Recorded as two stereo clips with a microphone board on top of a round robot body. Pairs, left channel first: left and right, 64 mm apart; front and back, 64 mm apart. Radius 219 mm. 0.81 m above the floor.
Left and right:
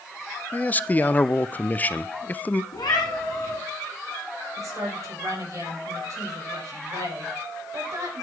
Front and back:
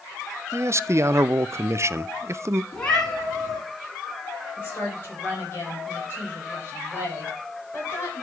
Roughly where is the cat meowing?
Left.